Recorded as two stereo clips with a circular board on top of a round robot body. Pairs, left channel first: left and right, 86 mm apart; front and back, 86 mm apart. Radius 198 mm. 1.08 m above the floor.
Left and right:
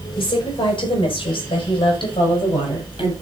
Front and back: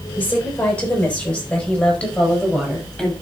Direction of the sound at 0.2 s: 70° left.